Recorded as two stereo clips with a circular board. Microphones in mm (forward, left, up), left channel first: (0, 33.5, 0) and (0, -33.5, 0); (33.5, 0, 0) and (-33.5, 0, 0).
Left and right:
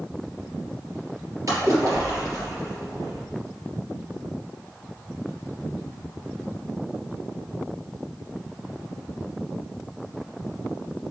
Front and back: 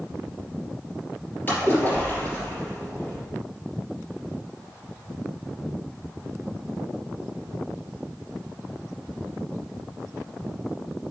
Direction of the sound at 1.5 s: 60° right.